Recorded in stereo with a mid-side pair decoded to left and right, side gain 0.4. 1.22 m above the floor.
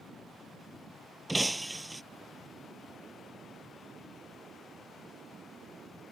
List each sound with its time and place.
1.3 s breaking glass: 10° right